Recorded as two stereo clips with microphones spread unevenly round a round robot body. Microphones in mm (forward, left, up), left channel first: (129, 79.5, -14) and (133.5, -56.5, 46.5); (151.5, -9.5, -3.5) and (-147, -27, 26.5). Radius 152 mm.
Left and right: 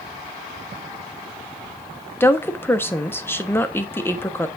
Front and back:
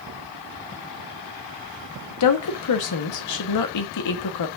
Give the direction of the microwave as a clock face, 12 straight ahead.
I don't hear a microwave.